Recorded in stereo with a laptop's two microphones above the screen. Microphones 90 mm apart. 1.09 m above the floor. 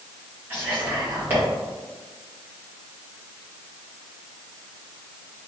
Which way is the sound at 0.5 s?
20° right (ahead or behind).